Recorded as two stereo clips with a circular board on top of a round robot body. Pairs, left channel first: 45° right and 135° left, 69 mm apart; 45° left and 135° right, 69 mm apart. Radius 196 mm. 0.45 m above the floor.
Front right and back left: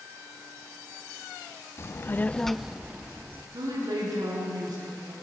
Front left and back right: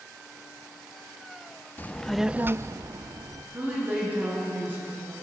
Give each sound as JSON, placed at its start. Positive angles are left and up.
{"t": 1.8, "sound": "a child speaking", "azimuth_deg": -10, "distance_m": 0.8}
{"t": 3.5, "sound": "a woman speaking", "azimuth_deg": 160, "distance_m": 9.0}